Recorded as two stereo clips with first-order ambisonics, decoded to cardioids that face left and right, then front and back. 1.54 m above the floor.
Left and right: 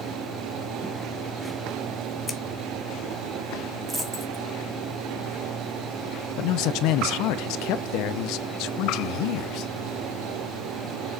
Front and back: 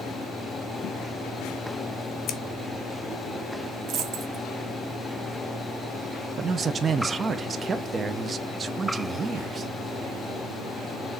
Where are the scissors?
10° left, 1.2 m.